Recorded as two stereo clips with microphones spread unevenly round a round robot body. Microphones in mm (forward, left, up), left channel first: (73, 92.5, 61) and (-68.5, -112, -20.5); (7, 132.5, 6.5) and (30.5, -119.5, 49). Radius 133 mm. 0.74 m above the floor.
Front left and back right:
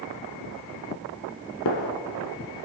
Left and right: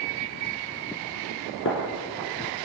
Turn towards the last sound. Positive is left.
turn(degrees=50)